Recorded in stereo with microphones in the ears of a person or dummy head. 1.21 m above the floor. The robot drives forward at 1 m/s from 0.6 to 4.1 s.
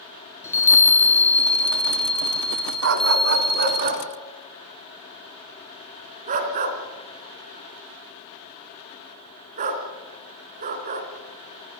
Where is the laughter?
No laughter in this recording.